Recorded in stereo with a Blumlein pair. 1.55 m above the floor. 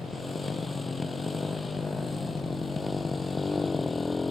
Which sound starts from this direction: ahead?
A motorcycle, at 0.0 s.